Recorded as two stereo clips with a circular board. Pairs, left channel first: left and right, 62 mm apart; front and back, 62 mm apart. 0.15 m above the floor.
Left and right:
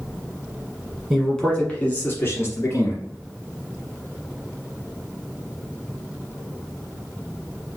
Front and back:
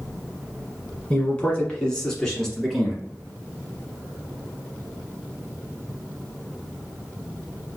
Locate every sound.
1.1 s a man speaking: straight ahead, 1.2 m; by 3.0 s 85° left, 1.8 m